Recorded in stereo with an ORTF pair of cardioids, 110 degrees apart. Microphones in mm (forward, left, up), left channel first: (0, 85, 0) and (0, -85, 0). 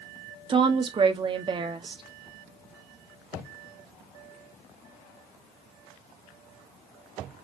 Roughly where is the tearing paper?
No tearing paper in this recording.